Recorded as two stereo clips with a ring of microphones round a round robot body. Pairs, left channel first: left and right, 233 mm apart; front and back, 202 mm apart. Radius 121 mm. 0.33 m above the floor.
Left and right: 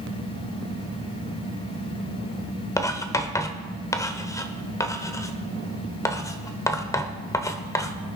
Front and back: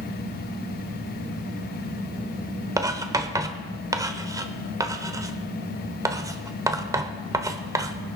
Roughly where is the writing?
Behind left.